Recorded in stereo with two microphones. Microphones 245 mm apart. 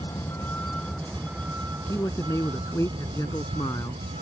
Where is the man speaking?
10° left (ahead or behind).